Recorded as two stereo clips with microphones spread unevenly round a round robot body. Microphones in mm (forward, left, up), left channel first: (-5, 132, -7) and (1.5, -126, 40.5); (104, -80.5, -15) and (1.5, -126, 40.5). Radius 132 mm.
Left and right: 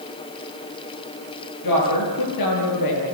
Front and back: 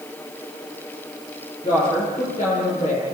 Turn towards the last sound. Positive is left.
turn(degrees=90)